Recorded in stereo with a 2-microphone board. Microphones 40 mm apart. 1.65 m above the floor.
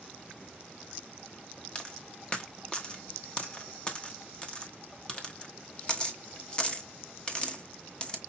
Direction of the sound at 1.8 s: 25° left (ahead or behind).